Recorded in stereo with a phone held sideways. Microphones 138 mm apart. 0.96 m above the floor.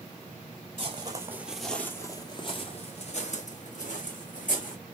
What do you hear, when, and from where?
0.8 s footsteps: 35° right (ahead or behind), 1.1 m; by 4.8 s 70° left (ahead or behind), 3 m